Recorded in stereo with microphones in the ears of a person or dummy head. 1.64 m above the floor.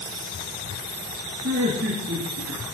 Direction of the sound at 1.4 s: 65° right (ahead or behind).